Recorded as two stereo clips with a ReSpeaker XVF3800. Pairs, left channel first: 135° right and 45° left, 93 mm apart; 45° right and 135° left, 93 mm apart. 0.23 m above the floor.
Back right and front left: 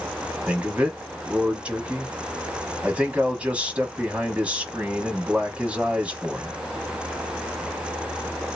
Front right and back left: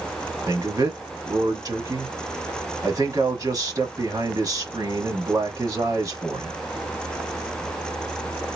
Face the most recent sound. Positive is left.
turn(degrees=115)